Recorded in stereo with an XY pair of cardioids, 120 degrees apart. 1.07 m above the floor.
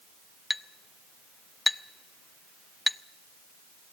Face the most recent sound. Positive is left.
turn(degrees=10)